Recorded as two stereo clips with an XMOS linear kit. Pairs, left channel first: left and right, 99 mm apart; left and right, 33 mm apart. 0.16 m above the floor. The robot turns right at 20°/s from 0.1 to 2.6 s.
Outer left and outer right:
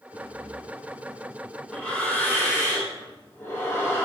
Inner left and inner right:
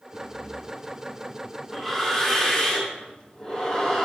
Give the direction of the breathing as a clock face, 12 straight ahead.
1 o'clock.